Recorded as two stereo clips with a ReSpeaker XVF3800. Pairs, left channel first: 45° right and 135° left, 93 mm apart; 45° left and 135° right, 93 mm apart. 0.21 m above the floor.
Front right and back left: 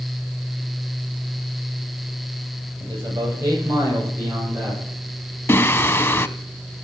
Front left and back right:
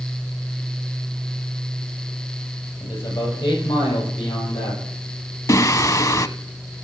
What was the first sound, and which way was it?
A man speaking, 85° left.